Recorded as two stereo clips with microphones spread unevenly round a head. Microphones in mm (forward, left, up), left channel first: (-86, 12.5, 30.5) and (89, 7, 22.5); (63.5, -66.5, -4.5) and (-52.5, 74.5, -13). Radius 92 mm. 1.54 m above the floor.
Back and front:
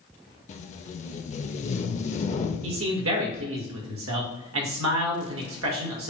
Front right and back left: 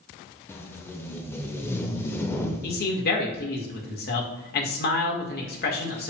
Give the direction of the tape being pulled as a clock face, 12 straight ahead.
4 o'clock.